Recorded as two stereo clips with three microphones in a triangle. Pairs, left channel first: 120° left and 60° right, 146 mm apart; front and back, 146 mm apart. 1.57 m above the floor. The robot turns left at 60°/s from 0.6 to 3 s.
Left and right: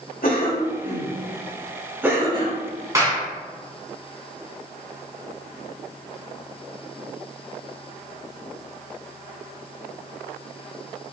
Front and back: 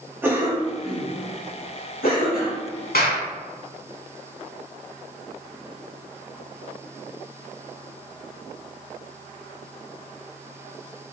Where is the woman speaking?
I don't hear a woman speaking.